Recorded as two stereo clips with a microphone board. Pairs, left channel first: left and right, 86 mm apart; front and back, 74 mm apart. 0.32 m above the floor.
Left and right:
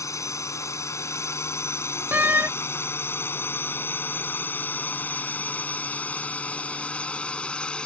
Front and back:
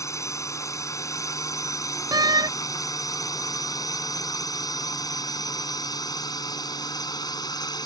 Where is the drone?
40° left; by 7.9 s 10° left.